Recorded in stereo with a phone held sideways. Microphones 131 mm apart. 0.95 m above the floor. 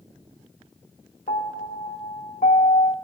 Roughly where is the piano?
Left.